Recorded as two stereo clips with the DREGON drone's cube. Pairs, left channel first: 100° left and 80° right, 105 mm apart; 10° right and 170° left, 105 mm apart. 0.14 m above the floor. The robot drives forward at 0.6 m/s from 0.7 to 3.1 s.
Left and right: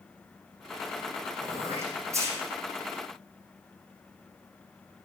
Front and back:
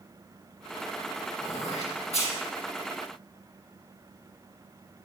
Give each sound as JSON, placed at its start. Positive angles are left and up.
{"t": 1.4, "sound": "throat clearing", "azimuth_deg": -15, "distance_m": 7.0}